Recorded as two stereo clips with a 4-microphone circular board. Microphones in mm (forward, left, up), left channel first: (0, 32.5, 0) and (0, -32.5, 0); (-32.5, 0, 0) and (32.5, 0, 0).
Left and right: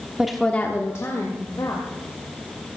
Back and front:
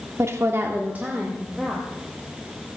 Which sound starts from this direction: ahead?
A woman speaking, at 0.2 s.